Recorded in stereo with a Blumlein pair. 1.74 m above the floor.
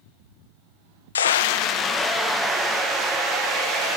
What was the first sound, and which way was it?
A scream, 70° left.